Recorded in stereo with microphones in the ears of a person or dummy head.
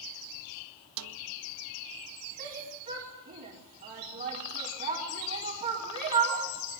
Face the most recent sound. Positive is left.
turn(degrees=-40)  # may be behind; listen again after turning